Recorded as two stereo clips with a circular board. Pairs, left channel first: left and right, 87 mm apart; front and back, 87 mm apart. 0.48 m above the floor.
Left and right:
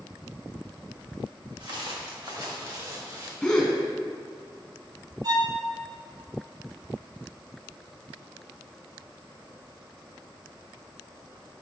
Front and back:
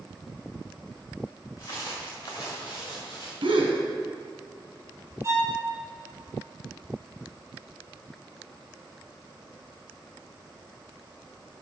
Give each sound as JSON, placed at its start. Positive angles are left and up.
{"t": 1.6, "sound": "footsteps", "azimuth_deg": -55, "distance_m": 3.5}
{"t": 3.4, "sound": "a gasp", "azimuth_deg": 175, "distance_m": 2.0}
{"t": 5.2, "sound": "a violin", "azimuth_deg": -125, "distance_m": 3.0}